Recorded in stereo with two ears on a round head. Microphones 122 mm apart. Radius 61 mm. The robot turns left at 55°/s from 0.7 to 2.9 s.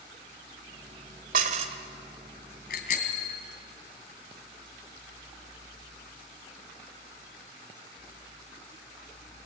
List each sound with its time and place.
1.3 s dishes clattering: 65° right (ahead or behind), 1.8 m; by 1.8 s 40° right (ahead or behind), 1.8 m
2.7 s a bicycle bell: 75° left (ahead or behind), 3 m; by 3.4 s 60° left (ahead or behind), 3 m